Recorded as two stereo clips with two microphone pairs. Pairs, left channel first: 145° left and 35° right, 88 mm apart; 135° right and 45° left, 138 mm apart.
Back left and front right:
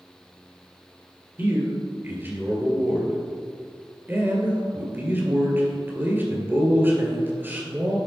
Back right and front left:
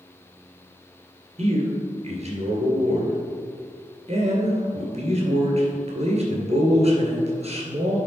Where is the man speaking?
25° left, 2 m.